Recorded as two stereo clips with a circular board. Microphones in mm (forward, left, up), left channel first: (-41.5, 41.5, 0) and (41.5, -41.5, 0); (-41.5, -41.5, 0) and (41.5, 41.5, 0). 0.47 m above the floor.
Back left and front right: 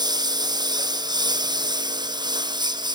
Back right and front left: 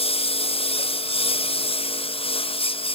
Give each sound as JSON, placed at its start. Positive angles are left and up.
{"t": 0.0, "sound": "a lawn mower", "azimuth_deg": -100}